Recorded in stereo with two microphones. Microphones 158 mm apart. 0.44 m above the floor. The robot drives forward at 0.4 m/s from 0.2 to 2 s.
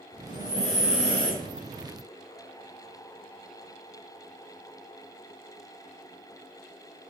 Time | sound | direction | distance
0.3 | breathing | 50° left (ahead or behind) | 0.9 m